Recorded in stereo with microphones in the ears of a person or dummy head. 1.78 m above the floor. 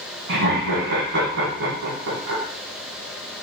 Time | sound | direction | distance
0.3 | laughter | 70° right (ahead or behind) | 1.9 m